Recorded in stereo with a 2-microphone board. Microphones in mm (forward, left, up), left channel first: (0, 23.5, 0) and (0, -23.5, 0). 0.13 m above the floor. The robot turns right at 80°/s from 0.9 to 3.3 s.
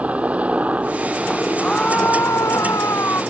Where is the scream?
Straight ahead; by 3.2 s 130° left.